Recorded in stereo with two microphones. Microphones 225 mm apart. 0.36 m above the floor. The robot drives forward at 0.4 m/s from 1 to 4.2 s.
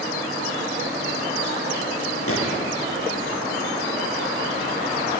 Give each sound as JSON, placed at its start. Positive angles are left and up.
{"t": 2.3, "sound": "a gunshot", "side_deg": 75, "distance_m": 8.5}